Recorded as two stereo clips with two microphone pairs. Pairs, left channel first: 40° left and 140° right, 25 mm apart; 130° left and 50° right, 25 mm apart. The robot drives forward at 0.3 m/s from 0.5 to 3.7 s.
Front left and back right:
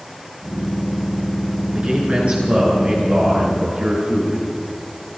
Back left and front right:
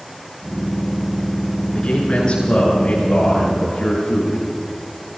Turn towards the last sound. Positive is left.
turn(degrees=180)